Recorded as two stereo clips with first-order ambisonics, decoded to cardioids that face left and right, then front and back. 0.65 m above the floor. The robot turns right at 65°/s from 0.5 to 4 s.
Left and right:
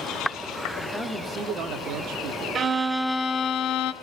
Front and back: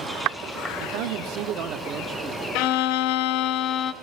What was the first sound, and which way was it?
A man speaking, 170° left.